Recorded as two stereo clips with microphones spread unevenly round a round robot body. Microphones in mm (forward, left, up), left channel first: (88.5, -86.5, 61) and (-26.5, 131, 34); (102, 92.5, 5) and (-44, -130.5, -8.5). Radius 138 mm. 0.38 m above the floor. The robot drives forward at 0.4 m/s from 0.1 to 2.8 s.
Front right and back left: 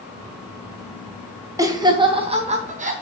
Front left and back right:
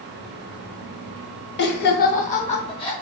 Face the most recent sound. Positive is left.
turn(degrees=120)